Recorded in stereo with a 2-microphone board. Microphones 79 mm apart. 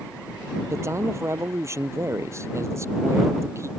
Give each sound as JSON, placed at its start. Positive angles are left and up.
{"t": 0.7, "sound": "a man speaking", "side_deg": -40}